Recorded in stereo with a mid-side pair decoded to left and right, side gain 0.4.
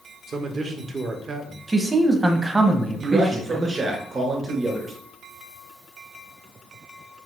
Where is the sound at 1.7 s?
25° right, 1.1 m.